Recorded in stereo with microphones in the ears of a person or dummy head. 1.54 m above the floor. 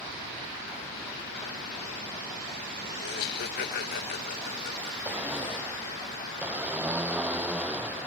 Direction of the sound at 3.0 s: 55° left (ahead or behind).